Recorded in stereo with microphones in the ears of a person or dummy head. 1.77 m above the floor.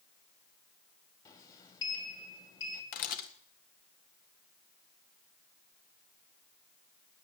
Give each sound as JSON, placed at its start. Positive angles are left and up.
{"t": 1.2, "sound": "a sliding door", "side_deg": 30, "distance_m": 2.5}
{"t": 2.9, "sound": "a camera shutter", "side_deg": 55, "distance_m": 1.8}